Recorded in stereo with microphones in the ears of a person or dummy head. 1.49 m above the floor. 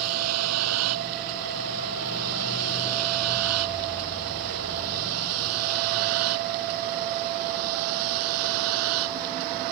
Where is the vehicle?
85° right.